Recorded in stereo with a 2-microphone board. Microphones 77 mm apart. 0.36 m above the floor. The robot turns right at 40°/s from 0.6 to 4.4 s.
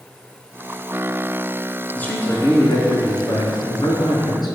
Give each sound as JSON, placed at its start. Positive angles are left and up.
{"t": 1.9, "sound": "a man speaking", "azimuth_deg": 15, "distance_m": 4.5}